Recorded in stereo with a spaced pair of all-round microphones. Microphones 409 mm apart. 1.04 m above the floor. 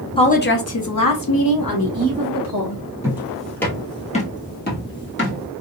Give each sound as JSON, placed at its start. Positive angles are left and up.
{"t": 0.2, "sound": "a woman speaking", "side_deg": 15, "distance_m": 0.5}
{"t": 3.0, "sound": "footsteps", "side_deg": -5, "distance_m": 1.1}